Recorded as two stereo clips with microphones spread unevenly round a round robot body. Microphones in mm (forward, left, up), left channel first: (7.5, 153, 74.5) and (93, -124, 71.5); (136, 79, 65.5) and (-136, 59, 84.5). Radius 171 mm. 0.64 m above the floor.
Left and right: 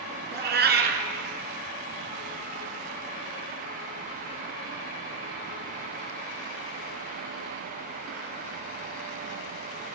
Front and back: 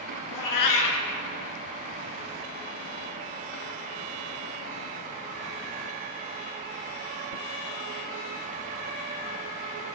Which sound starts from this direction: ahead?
A cat meowing, at 0.3 s.